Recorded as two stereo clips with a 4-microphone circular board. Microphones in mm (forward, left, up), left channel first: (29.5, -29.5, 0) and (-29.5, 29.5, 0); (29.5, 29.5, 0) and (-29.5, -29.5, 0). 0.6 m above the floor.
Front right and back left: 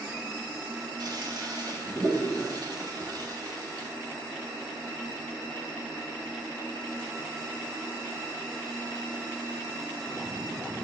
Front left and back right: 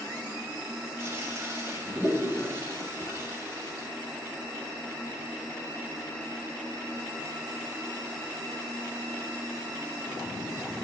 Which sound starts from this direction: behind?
A toilet flushing, at 1.0 s.